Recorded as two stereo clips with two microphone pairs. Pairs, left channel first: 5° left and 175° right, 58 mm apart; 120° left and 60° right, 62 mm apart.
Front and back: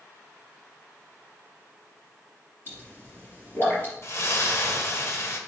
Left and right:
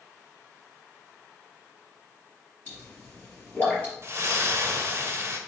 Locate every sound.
2.7 s a pop: 55° left, 3.5 m
4.0 s a splash: 20° right, 1.0 m